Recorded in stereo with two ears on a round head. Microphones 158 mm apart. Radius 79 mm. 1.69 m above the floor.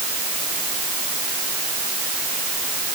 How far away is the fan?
No fan in this recording.